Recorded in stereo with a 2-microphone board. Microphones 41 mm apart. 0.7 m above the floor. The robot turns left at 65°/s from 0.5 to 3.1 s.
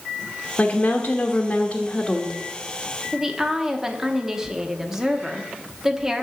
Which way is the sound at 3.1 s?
10° right (ahead or behind).